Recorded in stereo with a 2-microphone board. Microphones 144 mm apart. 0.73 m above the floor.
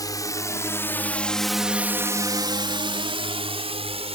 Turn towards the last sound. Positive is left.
turn(degrees=-40)  # may be behind; listen again after turning